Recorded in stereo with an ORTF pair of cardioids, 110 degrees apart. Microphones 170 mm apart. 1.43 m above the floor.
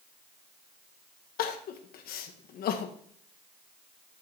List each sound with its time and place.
1.4 s crying: 65° left, 1.2 m